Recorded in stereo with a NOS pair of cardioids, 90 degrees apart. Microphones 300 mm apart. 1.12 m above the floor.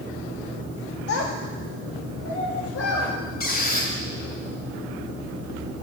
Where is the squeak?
30° left, 3 m.